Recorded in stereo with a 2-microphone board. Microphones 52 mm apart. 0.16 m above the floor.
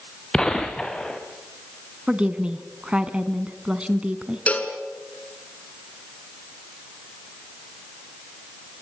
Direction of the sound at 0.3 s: 10° left (ahead or behind).